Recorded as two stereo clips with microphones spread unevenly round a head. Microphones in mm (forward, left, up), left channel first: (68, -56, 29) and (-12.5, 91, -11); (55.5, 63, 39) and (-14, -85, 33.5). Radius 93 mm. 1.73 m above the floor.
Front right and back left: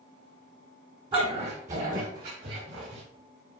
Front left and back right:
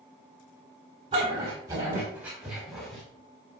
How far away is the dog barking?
About 4 m.